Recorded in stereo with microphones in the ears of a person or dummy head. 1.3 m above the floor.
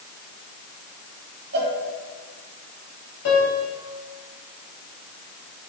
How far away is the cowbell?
About 2.5 m.